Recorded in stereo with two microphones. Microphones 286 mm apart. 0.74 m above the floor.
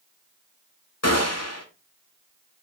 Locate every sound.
1.0 s a gunshot: 65° left (ahead or behind), 1.8 m